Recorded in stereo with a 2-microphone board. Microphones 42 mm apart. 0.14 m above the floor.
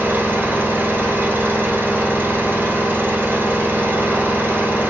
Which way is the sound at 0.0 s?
60° right (ahead or behind).